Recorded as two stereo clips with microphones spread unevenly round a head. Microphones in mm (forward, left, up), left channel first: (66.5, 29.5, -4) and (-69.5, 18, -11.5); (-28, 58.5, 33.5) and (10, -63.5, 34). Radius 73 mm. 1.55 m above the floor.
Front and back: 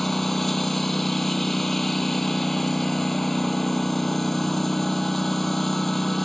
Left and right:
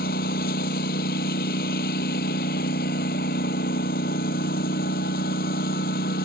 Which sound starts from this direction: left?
A lawn mower, at 0.0 s.